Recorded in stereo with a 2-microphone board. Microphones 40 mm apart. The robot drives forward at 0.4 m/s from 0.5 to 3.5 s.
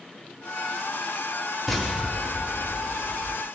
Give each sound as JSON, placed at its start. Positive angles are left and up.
{"t": 1.7, "sound": "an explosion", "side_deg": 10, "distance_m": 1.3}